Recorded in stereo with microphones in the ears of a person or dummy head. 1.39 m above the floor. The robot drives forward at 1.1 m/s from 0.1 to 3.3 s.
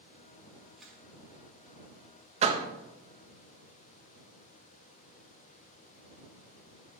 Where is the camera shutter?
Centre (ahead or behind), 2.5 m.